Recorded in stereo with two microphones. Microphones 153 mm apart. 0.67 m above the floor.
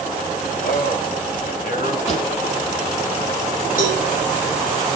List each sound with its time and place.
0.6 s a man speaking: 70° left (ahead or behind), 3.5 m
2.1 s a pop: 45° left (ahead or behind), 4.5 m
3.8 s a cowbell: 65° left (ahead or behind), 8.5 m